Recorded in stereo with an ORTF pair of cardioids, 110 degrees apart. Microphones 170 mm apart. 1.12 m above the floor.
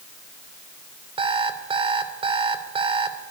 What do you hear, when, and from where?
1.2 s an alarm clock: 30° right, 2.5 m